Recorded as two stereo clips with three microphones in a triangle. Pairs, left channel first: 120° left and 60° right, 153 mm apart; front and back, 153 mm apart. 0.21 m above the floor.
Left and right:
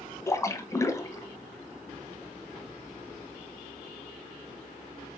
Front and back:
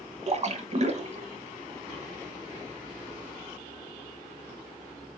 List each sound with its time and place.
0.3 s a splash: straight behind, 0.9 m